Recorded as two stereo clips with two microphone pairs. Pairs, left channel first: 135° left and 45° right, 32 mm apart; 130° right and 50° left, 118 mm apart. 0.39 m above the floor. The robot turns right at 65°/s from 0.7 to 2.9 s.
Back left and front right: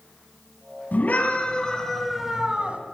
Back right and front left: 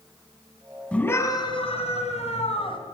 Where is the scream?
155° left, 2.5 m; by 2.8 s 85° right, 2.5 m.